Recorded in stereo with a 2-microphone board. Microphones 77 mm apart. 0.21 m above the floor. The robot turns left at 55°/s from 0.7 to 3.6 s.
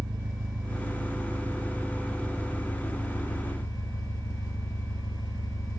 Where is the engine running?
90° right, 1.6 m; by 5.8 s 110° left, 1.6 m.